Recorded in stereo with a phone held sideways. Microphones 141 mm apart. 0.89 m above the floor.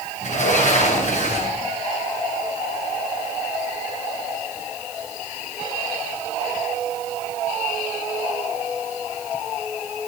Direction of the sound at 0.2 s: 60° left (ahead or behind).